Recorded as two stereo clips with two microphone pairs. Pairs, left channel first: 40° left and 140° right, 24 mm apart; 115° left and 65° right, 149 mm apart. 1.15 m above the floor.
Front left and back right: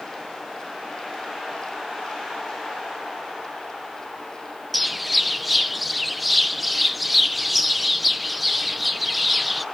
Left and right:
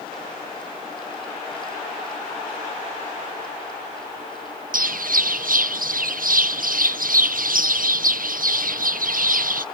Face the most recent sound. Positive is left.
turn(degrees=-55)